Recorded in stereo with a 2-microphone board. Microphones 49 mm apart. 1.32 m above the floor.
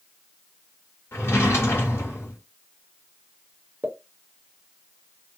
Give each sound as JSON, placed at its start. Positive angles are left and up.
{"t": 1.1, "sound": "a drawer", "side_deg": 65, "distance_m": 1.7}
{"t": 3.8, "sound": "a pop", "side_deg": -35, "distance_m": 0.9}